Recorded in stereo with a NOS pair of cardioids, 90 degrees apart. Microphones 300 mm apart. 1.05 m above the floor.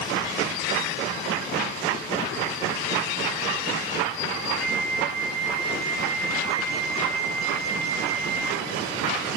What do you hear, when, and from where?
4.6 s a flute: 70° right, 5.5 m